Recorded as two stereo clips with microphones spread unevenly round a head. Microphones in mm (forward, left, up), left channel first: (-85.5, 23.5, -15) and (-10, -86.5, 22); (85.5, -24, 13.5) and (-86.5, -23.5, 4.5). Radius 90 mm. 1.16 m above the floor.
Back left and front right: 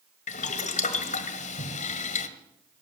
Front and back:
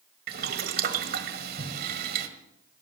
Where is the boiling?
150° left, 1.3 m.